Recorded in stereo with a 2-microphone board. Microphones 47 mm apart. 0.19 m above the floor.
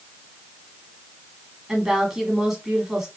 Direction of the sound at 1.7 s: 10° right (ahead or behind).